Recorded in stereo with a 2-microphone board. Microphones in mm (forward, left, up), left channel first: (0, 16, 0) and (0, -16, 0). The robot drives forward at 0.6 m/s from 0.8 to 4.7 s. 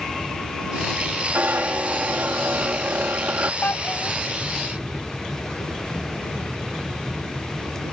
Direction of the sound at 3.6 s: 80° left.